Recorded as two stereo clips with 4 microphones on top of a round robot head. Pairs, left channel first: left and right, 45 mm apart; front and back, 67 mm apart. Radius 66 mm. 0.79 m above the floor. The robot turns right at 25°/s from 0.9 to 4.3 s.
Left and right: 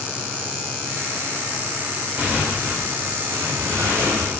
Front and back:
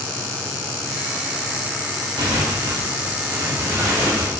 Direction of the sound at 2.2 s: 165° right.